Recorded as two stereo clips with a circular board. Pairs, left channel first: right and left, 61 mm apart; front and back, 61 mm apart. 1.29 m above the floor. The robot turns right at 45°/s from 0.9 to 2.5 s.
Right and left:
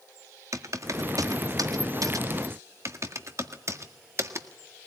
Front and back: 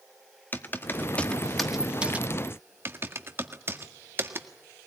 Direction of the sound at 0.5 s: 55° left.